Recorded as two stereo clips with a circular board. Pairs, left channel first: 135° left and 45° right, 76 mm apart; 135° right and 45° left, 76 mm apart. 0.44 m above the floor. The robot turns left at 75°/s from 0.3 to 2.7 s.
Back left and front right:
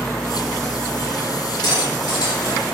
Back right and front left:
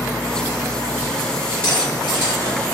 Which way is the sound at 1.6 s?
155° left.